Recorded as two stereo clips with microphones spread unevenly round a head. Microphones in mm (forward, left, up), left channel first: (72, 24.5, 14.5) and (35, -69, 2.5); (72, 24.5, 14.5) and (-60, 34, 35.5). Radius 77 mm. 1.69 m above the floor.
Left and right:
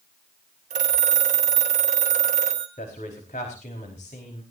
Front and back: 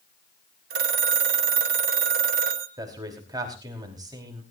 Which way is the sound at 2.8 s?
115° left.